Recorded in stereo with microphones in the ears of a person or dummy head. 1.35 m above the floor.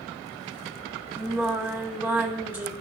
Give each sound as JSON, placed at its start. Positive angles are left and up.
{"t": 1.2, "sound": "singing", "side_deg": -10, "distance_m": 2.5}